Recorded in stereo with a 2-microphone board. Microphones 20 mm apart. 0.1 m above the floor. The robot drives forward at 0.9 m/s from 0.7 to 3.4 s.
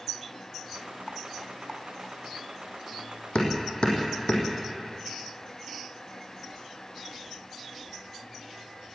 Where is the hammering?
60° left (ahead or behind), 4 m.